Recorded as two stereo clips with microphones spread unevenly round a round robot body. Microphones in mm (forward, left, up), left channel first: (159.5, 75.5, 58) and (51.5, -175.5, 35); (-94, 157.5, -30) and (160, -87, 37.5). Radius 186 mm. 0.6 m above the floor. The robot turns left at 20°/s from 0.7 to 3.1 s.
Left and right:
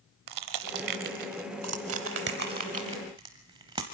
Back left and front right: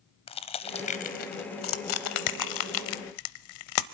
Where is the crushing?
145° right, 0.6 m; by 3.9 s 170° left, 0.6 m.